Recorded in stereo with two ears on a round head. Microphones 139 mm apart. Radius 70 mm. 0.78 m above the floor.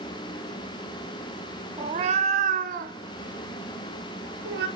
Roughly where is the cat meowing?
Right.